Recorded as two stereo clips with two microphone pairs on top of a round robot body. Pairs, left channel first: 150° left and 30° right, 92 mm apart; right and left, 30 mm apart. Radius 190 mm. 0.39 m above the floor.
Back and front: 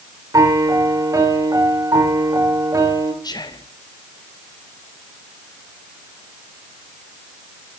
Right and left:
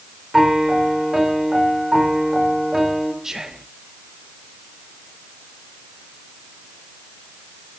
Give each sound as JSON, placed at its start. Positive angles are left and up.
{"t": 0.3, "sound": "a piano", "azimuth_deg": 15, "distance_m": 2.5}
{"t": 3.2, "sound": "whispering", "azimuth_deg": 150, "distance_m": 1.3}